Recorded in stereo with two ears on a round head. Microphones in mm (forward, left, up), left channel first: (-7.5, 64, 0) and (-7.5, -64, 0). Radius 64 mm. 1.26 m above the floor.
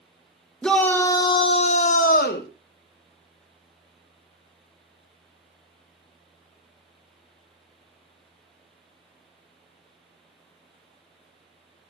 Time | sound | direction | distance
0.6 | a shout | 5° left (ahead or behind) | 1.8 m